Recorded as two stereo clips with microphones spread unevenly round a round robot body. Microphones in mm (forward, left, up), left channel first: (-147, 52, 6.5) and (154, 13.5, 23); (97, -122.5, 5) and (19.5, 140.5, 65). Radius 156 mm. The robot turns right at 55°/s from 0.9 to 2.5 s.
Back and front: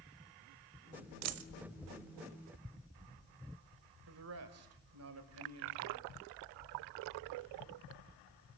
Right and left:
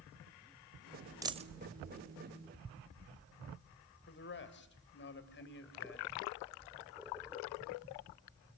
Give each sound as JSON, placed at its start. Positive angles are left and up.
{"t": 1.2, "sound": "a dropped coin", "azimuth_deg": 25, "distance_m": 1.0}
{"t": 4.1, "sound": "a man speaking", "azimuth_deg": -45, "distance_m": 3.0}